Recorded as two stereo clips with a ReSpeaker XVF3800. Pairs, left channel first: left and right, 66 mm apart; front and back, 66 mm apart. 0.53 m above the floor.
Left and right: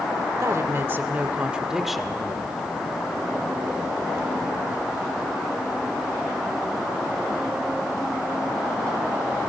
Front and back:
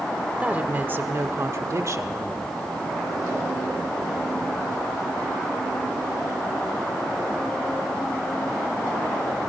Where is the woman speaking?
115° right, 1.5 m; by 2.7 s 160° left, 1.7 m.